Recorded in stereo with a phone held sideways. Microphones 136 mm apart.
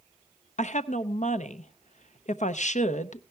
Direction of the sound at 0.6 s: 60° left (ahead or behind).